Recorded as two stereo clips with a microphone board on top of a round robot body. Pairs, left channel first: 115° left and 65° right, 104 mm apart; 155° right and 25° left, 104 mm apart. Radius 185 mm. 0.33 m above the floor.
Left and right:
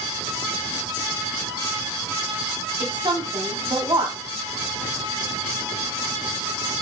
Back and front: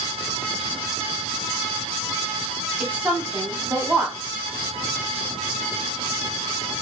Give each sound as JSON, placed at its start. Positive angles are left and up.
{"t": 2.8, "sound": "a woman speaking", "azimuth_deg": -50, "distance_m": 1.5}